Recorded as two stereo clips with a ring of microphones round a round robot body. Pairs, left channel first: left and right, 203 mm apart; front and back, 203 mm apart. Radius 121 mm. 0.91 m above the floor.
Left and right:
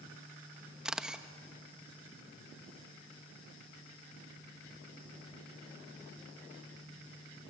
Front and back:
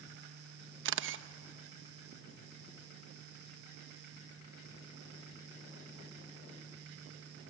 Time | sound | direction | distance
0.8 | a camera shutter | 175° right | 1.0 m